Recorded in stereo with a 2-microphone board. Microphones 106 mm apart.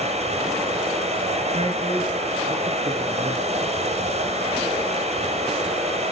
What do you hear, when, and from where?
0.0 s running water: 80° right, 6 m
1.5 s a man speaking: 60° right (ahead or behind), 5 m